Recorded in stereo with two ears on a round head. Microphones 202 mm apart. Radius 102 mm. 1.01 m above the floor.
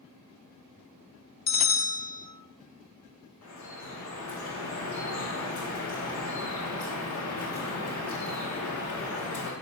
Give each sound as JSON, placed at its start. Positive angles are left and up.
{"t": 1.5, "sound": "a bell", "side_deg": 30, "distance_m": 0.6}
{"t": 3.4, "sound": "dripping", "side_deg": 60, "distance_m": 2.5}